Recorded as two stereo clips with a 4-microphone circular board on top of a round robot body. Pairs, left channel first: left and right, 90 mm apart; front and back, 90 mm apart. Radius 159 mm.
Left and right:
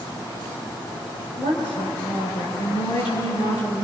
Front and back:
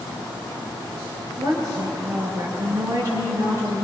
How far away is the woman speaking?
About 7.5 m.